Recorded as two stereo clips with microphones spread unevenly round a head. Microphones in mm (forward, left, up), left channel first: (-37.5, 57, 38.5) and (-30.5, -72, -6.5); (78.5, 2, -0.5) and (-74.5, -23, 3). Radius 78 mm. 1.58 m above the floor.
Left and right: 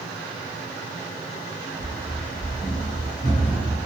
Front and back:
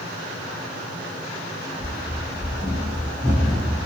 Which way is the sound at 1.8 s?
175° right.